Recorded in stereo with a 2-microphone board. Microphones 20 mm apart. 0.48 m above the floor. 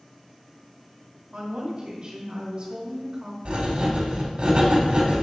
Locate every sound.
1.3 s a woman speaking: 50° right (ahead or behind), 1.3 m
3.5 s writing: 60° right (ahead or behind), 1.1 m